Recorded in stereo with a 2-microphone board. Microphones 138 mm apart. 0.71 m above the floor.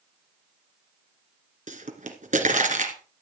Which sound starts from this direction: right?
A pop, at 1.7 s.